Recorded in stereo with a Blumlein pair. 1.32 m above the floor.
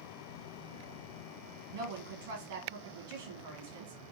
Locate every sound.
1.7 s a woman speaking: 55° right, 1.4 m